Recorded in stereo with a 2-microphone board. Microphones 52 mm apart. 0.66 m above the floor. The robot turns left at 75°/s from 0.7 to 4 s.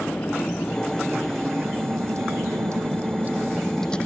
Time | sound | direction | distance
0.0 | a vehicle | 40° left (ahead or behind) | ?